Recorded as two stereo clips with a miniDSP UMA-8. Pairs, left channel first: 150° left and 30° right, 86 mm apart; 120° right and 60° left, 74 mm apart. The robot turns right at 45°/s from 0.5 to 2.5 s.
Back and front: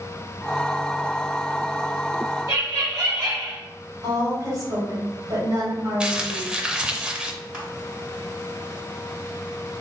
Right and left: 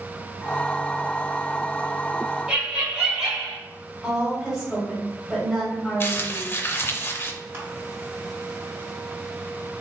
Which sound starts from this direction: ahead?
Laughter, at 2.5 s.